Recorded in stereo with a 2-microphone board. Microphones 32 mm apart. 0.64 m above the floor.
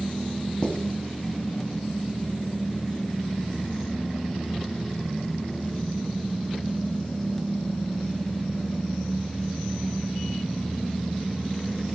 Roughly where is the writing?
Left.